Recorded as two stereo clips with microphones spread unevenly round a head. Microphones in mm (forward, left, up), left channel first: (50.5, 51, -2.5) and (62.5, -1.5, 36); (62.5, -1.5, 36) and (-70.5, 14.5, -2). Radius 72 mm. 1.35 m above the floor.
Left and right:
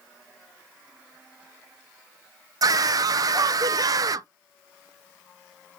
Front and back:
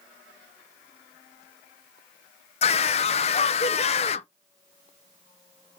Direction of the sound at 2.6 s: 60° right.